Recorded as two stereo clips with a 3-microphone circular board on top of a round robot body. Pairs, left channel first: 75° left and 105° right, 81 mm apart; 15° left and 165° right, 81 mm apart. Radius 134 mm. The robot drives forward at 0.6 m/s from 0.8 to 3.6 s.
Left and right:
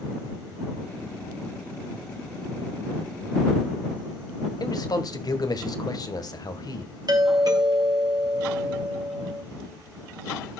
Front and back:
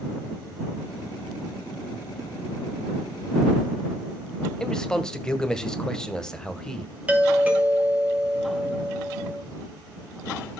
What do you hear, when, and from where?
4.6 s a man speaking: 95° left, 1.8 m
7.1 s a doorbell: 95° right, 2.5 m